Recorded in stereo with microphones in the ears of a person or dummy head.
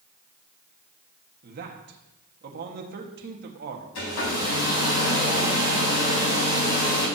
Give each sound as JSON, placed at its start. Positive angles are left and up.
{"t": 1.4, "sound": "a man speaking", "side_deg": -45, "distance_m": 1.7}
{"t": 4.0, "sound": "a hair dryer", "side_deg": 70, "distance_m": 4.0}